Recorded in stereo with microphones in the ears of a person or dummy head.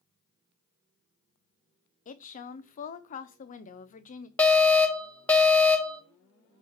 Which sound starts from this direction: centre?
An alarm, at 4.4 s.